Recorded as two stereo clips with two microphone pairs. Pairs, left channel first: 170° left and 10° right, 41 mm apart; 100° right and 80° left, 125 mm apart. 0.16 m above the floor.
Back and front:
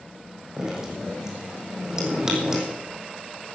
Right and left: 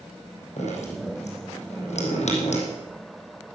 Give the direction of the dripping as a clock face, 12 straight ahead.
3 o'clock.